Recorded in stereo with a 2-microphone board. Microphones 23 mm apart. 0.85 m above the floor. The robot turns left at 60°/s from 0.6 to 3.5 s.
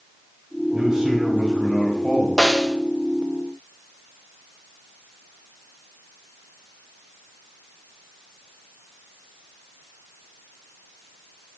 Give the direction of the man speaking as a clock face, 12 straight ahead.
5 o'clock.